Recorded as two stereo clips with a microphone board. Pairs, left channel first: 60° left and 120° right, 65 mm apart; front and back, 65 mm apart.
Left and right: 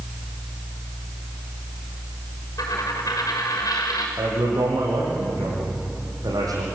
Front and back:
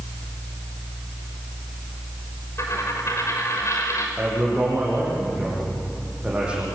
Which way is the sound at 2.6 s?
40° left.